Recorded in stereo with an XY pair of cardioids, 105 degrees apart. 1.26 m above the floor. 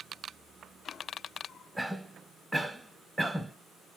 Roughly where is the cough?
Ahead.